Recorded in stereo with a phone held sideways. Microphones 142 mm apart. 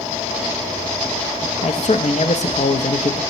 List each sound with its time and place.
1.6 s a man speaking: 60° left (ahead or behind), 0.6 m